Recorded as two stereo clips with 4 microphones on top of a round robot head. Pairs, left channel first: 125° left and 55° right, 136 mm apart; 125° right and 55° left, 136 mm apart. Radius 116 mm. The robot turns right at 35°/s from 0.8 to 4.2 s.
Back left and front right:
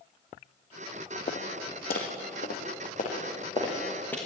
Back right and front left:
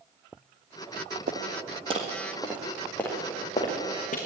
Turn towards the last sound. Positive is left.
turn(degrees=-155)